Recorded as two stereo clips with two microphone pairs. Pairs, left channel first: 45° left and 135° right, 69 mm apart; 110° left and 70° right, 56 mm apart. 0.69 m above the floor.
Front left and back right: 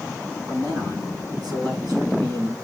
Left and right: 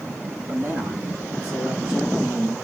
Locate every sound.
0.5 s a man speaking: 125° right, 5 m; by 2.5 s 145° right, 4 m